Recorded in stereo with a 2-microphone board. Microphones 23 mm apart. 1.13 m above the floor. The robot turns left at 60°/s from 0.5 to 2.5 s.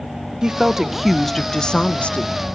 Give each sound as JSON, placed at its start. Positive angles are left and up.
{"t": 0.4, "sound": "a woman speaking", "azimuth_deg": -140, "distance_m": 0.7}